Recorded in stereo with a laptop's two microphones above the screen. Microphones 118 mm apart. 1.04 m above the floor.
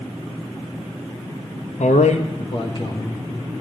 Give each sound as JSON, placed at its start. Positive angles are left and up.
{"t": 1.8, "sound": "a man speaking", "side_deg": 80, "distance_m": 0.7}